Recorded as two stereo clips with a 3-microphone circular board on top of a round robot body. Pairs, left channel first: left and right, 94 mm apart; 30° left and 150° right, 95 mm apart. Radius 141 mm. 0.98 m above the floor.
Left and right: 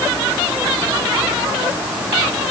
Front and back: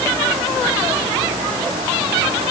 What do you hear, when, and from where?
Only background noise.